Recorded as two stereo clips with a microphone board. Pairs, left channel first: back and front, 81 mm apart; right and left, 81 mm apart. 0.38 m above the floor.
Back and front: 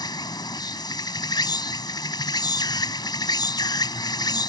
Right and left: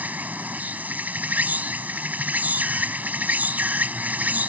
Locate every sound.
0.0 s an insect: 160° left